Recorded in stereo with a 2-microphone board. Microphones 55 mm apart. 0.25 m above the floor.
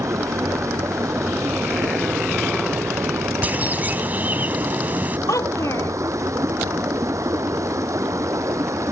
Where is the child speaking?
70° left (ahead or behind).